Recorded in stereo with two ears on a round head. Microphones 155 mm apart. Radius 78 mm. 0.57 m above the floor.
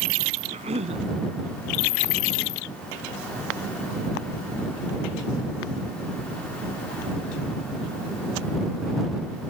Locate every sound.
0.5 s a cough: 40° right (ahead or behind)